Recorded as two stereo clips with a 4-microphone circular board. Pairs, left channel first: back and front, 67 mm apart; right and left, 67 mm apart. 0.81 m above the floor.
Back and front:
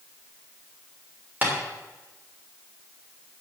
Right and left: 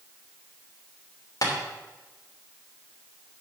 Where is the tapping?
65° right, 3 m.